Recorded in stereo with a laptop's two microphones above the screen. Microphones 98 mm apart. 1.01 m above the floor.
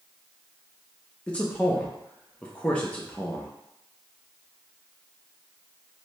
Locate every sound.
1.3 s a man speaking: 15° left (ahead or behind), 0.6 m